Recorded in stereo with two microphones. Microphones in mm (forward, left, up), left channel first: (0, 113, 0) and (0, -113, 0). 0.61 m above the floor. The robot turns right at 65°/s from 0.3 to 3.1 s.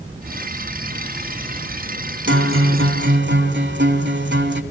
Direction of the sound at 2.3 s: 115° right.